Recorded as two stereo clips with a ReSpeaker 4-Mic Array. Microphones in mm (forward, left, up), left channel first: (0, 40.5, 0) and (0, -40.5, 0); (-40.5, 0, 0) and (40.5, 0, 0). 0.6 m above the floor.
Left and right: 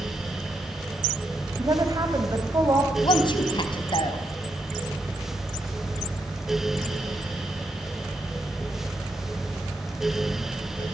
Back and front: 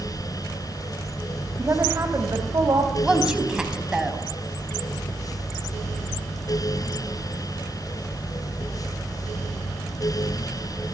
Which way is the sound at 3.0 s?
80° left.